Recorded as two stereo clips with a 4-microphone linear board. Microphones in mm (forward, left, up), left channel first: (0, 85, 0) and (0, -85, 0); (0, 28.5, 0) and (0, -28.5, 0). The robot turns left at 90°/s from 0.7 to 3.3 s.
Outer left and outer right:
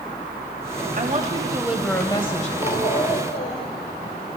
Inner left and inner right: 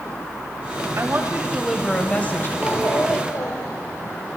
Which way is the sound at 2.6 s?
140° left.